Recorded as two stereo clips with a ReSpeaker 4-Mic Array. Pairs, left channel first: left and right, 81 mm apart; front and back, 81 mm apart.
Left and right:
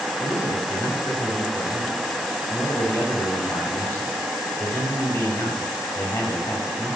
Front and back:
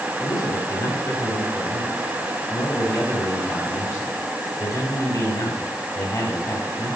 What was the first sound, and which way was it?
A man speaking, 40° left.